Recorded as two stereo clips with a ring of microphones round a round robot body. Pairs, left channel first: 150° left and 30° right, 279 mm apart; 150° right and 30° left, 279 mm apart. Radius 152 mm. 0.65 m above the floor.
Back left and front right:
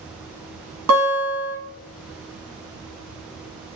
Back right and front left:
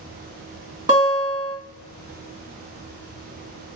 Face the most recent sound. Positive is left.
turn(degrees=-45)